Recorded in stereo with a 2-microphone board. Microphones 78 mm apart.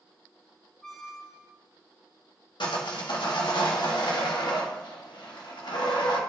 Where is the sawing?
80° left, 1.8 m.